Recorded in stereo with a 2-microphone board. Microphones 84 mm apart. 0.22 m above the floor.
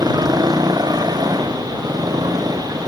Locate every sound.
0.0 s a motorcycle: 55° right (ahead or behind); by 2.9 s 50° right (ahead or behind)